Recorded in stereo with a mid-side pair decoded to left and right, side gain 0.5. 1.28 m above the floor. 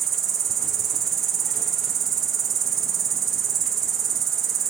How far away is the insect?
About 1.1 m.